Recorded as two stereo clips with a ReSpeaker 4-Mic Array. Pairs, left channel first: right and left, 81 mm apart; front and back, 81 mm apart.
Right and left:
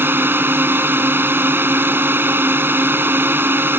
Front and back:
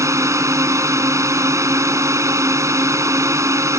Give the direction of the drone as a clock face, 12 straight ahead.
7 o'clock.